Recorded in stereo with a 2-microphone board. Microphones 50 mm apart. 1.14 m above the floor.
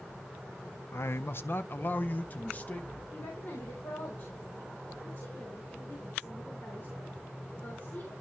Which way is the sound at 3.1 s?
55° left (ahead or behind).